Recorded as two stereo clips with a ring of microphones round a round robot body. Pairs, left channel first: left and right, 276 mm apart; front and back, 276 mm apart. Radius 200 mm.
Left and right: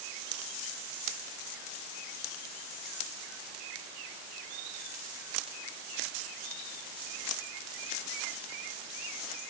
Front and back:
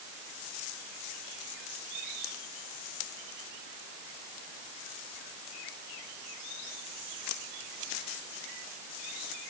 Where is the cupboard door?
No cupboard door in this recording.